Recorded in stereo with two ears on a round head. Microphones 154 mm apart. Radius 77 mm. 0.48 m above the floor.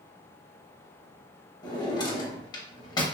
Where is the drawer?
25° left (ahead or behind), 0.6 m.